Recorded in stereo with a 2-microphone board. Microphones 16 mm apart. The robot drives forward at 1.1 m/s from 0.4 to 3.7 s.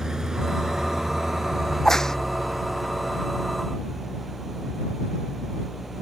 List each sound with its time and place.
0.0 s an engine running: 40° right (ahead or behind); by 6.0 s 20° right (ahead or behind)
1.7 s a crack: 30° left (ahead or behind); by 2.2 s 35° left (ahead or behind)